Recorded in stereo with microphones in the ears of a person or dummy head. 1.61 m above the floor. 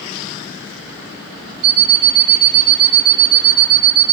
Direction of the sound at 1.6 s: 25° right (ahead or behind).